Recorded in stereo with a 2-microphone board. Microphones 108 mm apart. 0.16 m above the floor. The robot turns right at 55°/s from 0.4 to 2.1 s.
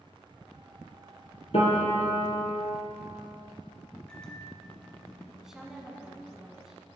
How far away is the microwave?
About 1.3 m.